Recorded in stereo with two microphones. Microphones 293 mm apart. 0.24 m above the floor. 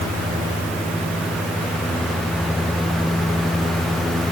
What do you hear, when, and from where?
Only background noise.